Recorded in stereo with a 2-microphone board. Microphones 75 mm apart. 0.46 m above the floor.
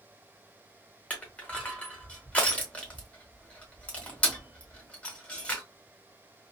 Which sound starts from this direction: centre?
Crushing, at 1.1 s.